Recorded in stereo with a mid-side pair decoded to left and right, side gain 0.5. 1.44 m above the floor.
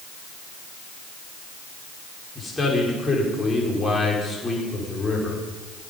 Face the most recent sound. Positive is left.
turn(degrees=20)